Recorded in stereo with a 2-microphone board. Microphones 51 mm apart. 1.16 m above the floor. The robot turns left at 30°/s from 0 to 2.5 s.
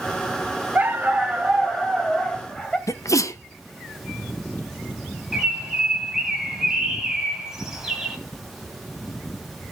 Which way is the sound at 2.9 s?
75° left (ahead or behind).